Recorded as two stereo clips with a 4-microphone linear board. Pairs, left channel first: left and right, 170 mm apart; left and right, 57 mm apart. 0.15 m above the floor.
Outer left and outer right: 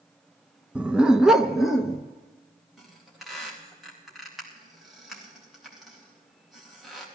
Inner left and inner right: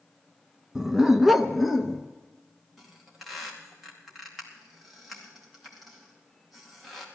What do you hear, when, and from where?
0.8 s a dog barking: 10° right (ahead or behind), 0.6 m; by 2.0 s centre (ahead or behind), 1.0 m
2.8 s a squeak: centre (ahead or behind), 4 m